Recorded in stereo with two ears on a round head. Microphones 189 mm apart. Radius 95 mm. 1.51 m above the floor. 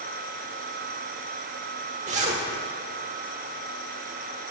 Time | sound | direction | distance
2.1 | a zipper | 35° right (ahead or behind) | 1.3 m